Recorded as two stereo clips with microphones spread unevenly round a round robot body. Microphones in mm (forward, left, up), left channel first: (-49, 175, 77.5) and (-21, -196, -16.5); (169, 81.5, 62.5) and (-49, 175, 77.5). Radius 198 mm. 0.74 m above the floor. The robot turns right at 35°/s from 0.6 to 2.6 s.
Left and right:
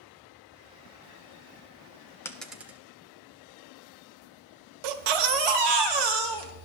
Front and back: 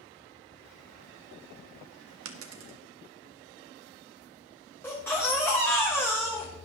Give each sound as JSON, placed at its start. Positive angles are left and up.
{"t": 2.2, "sound": "a dropped coin", "azimuth_deg": 165, "distance_m": 0.8}
{"t": 4.8, "sound": "a baby crying", "azimuth_deg": -110, "distance_m": 1.2}